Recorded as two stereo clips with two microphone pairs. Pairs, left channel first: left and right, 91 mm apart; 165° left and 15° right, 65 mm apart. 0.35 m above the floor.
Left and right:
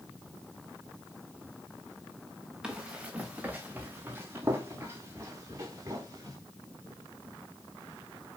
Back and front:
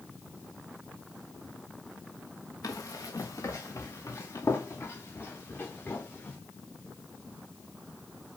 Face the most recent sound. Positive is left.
turn(degrees=-140)